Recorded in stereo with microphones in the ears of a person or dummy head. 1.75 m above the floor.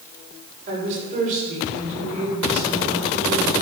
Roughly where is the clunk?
I don't hear a clunk.